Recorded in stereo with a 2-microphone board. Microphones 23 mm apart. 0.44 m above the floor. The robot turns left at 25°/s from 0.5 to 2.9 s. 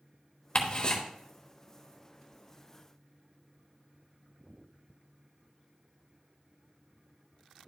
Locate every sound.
0.6 s ticking: 45° left (ahead or behind), 1.1 m; by 1.0 s 35° left (ahead or behind), 1.1 m